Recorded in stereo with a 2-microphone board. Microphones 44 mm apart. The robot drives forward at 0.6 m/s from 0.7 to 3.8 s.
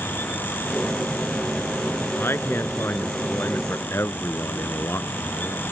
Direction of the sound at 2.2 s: 65° left (ahead or behind).